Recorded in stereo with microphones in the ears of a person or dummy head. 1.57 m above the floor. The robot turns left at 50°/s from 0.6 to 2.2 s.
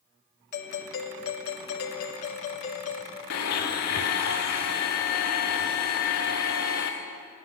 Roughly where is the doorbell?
Behind left.